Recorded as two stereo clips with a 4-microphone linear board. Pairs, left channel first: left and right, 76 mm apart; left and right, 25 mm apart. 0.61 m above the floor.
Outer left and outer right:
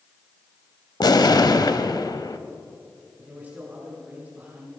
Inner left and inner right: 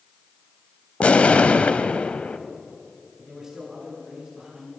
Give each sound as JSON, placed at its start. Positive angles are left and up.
{"t": 1.0, "sound": "an explosion", "side_deg": 60, "distance_m": 0.7}
{"t": 3.2, "sound": "a man speaking", "side_deg": -20, "distance_m": 6.0}